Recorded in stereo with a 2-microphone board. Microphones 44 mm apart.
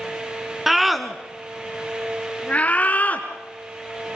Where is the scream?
5° right (ahead or behind), 1.7 m; by 4.2 s 40° left (ahead or behind), 2.5 m.